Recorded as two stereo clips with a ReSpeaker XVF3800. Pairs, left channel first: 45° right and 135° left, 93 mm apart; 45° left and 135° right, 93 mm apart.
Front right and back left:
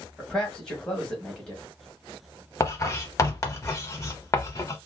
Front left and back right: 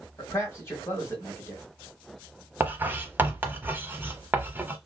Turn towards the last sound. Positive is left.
turn(degrees=-80)